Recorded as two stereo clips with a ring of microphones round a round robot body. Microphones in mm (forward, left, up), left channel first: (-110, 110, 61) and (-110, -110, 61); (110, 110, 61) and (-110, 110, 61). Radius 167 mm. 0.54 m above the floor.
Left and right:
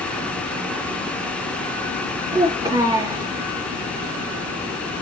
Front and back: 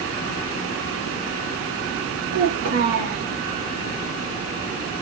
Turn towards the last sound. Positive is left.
turn(degrees=-165)